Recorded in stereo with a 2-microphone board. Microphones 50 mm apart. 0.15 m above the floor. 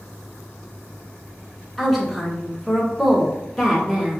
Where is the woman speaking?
Centre (ahead or behind), 1.4 m.